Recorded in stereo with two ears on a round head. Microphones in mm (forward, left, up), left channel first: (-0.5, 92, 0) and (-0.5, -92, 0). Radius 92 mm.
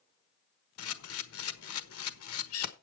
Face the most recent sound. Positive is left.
turn(degrees=80)